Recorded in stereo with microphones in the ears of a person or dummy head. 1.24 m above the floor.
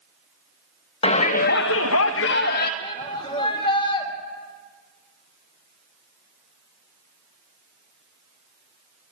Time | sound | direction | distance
1.0 | a shout | 30° left (ahead or behind) | 1.1 m
2.8 | a shout | 30° left (ahead or behind) | 3 m